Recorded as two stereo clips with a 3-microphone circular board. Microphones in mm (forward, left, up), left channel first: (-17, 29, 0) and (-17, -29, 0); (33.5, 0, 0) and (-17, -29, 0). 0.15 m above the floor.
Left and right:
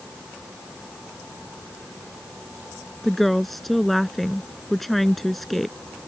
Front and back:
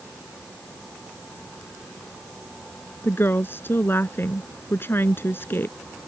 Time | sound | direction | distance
3.0 | a woman speaking | 5° left | ?